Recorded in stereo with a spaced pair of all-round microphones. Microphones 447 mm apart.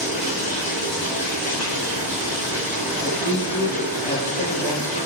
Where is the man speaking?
30° left (ahead or behind), 2.5 m.